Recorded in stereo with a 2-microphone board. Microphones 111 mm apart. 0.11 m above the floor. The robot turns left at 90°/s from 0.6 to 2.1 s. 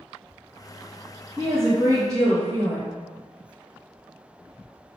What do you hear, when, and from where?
1.4 s a woman speaking: 20° right, 1.6 m; by 3.0 s 90° right, 1.6 m